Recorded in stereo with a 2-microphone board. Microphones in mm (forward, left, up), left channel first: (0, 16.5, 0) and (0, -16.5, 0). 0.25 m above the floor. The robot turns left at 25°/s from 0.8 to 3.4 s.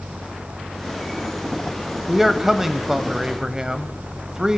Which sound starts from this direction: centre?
A man speaking, at 2.1 s.